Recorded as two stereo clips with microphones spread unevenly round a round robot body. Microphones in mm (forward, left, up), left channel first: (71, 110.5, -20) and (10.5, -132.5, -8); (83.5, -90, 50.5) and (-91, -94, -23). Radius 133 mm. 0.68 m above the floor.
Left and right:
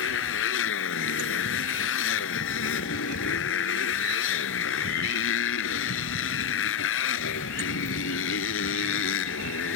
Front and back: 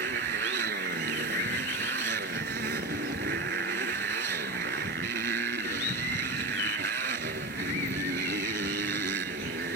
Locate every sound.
0.0 s a motorcycle: 125° left